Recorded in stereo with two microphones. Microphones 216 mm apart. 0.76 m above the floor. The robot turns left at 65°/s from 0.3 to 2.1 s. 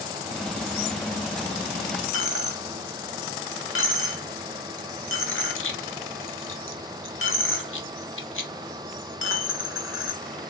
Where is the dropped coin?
70° left (ahead or behind), 0.6 m.